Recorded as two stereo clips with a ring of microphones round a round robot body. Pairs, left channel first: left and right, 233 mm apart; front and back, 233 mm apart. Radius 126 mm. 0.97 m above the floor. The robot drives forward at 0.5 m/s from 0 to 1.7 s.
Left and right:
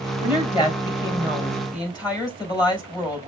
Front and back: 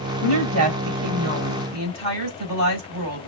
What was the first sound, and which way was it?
A woman speaking, 160° left.